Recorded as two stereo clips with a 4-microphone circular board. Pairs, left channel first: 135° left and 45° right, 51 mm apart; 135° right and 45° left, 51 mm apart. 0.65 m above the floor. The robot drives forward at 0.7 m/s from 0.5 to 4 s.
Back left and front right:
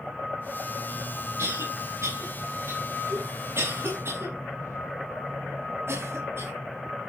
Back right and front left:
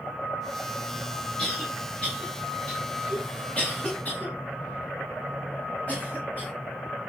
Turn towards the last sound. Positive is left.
turn(degrees=-75)